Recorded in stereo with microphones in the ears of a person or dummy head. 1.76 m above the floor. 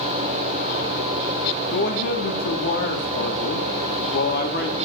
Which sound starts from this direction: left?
A man speaking, at 1.7 s.